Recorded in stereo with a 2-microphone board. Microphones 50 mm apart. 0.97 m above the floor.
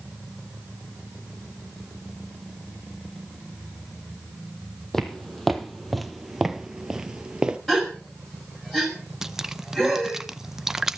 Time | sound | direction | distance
4.9 | footsteps | 5° left (ahead or behind) | 1.6 m
7.7 | a gasp | 5° left (ahead or behind) | 5.5 m
9.2 | dripping | 10° right (ahead or behind) | 0.5 m